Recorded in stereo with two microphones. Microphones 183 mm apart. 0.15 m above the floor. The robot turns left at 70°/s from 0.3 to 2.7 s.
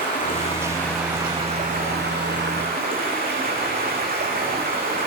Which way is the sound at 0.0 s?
45° left.